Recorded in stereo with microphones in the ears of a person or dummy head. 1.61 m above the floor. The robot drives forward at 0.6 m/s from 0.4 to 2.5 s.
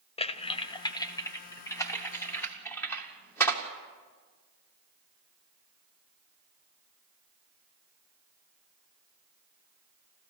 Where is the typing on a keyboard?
25° left (ahead or behind), 0.6 m; by 3.6 s 10° left (ahead or behind), 1.9 m.